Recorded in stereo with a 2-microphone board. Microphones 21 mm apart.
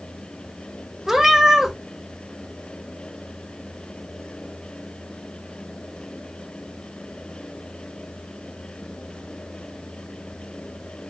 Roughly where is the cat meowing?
Centre.